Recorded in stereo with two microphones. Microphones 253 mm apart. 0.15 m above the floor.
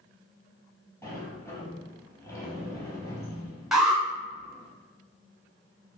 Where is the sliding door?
10° left (ahead or behind), 1.1 m.